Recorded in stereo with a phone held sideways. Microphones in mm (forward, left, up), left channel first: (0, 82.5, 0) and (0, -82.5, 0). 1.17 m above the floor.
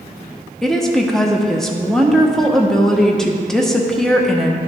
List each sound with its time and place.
0.6 s a woman speaking: 5° left (ahead or behind), 1.0 m